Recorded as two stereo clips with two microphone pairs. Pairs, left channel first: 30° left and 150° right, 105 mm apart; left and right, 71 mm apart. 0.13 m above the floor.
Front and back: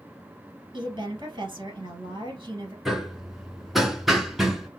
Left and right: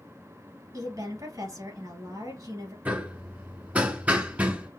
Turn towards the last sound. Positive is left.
turn(degrees=-60)